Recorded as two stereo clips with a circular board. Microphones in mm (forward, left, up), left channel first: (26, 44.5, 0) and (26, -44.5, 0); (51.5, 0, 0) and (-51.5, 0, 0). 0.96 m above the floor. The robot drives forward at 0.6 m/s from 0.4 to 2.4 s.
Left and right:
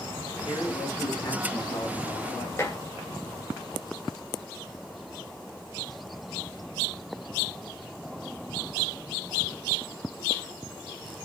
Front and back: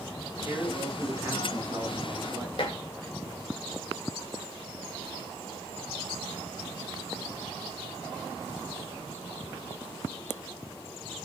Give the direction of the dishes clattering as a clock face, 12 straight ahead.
11 o'clock.